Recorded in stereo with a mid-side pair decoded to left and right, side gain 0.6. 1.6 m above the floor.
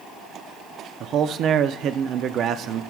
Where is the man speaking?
55° right, 0.5 m.